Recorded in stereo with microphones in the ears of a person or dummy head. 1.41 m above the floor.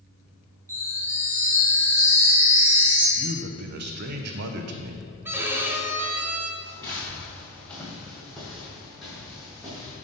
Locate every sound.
0.7 s a chime: 15° right (ahead or behind), 2 m
3.2 s a man speaking: 55° right (ahead or behind), 0.6 m
5.2 s a violin: 10° right (ahead or behind), 0.5 m
6.6 s footsteps: 15° left (ahead or behind), 1.5 m; by 9.9 s 5° right (ahead or behind), 3.5 m